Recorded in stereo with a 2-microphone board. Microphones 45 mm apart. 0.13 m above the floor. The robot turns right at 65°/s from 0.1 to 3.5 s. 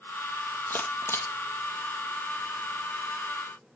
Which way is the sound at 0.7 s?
45° left (ahead or behind).